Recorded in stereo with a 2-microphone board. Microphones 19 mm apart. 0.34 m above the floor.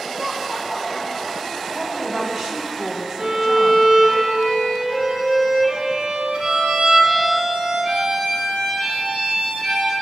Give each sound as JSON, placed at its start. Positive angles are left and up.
{"t": 0.1, "sound": "laughter", "side_deg": -25, "distance_m": 1.1}
{"t": 1.7, "sound": "a woman speaking", "side_deg": -30, "distance_m": 2.0}
{"t": 3.2, "sound": "a violin", "side_deg": -60, "distance_m": 3.5}